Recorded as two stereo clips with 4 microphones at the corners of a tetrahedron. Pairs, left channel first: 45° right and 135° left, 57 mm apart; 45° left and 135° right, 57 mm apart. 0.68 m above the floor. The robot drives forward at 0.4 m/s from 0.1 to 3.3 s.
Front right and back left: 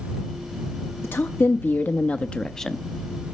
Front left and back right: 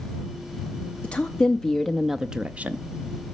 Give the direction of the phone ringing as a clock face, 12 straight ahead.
I don't hear a phone ringing.